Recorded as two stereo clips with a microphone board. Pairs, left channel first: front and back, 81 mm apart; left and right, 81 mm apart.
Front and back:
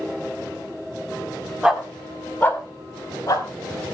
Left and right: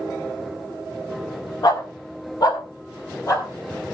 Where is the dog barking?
105° left, 1.5 m; by 3.5 s 40° left, 3 m.